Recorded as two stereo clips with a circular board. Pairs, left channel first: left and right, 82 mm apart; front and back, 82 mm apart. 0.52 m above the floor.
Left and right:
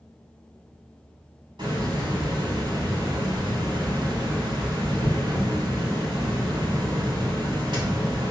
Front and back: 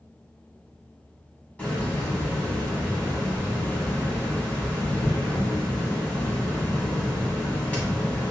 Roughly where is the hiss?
Right.